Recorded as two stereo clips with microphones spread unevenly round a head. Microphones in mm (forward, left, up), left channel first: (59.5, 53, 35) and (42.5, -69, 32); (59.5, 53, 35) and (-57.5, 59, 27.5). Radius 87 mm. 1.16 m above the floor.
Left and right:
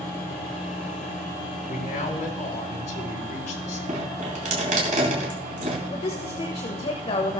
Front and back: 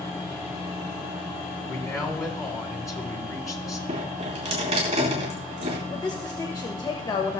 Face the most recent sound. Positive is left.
turn(degrees=45)